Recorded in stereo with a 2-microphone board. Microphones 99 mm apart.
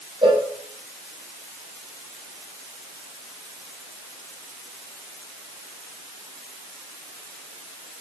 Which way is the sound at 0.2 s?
55° right (ahead or behind).